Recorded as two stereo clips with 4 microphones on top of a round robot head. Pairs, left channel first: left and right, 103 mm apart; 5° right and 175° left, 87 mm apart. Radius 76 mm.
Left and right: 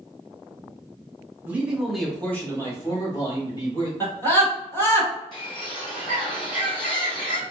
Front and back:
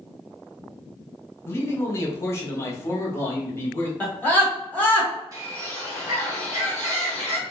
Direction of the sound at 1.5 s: 35° right.